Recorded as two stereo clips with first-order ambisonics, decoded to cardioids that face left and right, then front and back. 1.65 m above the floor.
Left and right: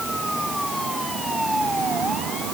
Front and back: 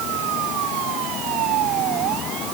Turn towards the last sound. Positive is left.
No sound to turn to.